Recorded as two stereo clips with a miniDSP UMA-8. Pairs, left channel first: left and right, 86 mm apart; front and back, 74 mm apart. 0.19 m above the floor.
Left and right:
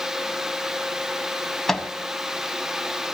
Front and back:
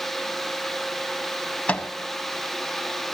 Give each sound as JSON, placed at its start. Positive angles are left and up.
{"t": 1.7, "sound": "a microwave", "azimuth_deg": 15, "distance_m": 0.8}